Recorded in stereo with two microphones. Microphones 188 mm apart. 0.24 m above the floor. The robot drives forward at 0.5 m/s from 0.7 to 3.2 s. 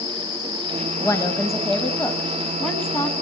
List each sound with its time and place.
1.0 s a woman speaking: 15° left (ahead or behind), 1.0 m; by 3.1 s 10° left (ahead or behind), 1.6 m